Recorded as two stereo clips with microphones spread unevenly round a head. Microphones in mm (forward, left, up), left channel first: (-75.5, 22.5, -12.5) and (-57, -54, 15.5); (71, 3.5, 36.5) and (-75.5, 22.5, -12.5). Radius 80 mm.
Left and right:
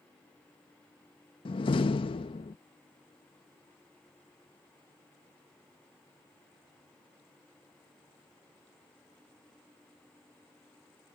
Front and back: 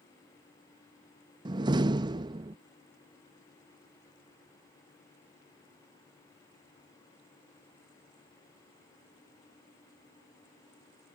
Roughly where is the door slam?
Left.